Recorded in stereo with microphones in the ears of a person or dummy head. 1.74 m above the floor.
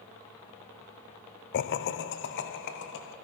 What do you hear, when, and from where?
1.5 s laughter: 55° left (ahead or behind), 0.6 m; by 3.1 s 60° left (ahead or behind), 2 m